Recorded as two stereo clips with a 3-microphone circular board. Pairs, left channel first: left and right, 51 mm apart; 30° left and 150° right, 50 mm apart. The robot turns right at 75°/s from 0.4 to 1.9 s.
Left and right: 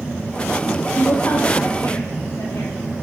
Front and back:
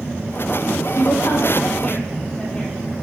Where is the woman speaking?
30° left, 7 m; by 2.7 s 105° left, 7 m.